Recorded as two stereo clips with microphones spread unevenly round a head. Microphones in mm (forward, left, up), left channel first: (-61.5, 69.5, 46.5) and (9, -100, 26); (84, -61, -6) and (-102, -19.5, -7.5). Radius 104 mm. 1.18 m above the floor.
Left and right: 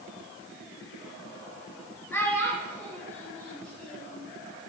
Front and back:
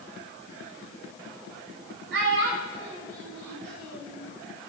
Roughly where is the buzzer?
I don't hear a buzzer.